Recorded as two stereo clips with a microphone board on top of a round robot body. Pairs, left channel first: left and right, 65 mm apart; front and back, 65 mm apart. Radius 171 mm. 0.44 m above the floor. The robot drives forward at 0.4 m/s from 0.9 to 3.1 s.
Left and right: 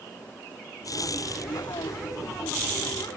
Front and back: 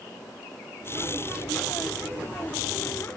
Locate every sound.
Only background noise.